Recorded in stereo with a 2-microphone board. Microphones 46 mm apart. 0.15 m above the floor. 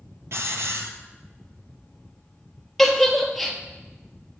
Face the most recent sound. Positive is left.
turn(degrees=5)  # may be behind; listen again after turning